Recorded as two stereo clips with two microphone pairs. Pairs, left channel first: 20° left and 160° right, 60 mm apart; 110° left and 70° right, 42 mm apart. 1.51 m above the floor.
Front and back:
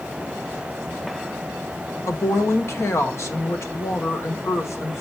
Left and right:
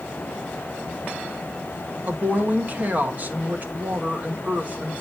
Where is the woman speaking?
20° right, 1.6 m.